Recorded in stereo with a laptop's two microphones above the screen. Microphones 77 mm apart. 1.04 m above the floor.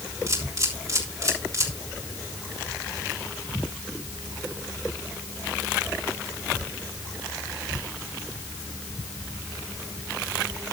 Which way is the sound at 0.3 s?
40° right (ahead or behind).